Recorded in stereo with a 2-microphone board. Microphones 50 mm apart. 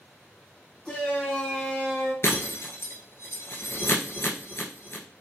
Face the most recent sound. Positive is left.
turn(degrees=60)  # may be behind; listen again after turning